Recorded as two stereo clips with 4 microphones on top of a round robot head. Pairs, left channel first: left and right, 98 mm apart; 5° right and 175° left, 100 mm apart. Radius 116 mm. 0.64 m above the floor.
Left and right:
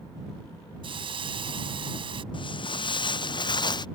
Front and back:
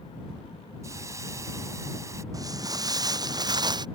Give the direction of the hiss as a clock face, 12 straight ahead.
4 o'clock.